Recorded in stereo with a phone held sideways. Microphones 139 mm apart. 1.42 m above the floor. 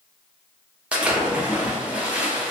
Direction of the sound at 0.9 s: 10° right (ahead or behind).